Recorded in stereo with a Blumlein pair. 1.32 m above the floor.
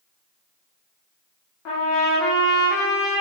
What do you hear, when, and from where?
1.6 s a trumpet: 35° left, 0.9 m